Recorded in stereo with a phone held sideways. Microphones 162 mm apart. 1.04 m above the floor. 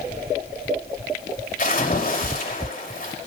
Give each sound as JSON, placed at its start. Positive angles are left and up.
{"t": 1.6, "sound": "a splash", "side_deg": 55, "distance_m": 5.0}